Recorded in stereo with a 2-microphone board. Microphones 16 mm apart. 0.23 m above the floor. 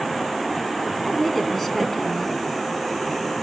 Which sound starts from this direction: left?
A woman speaking, at 1.0 s.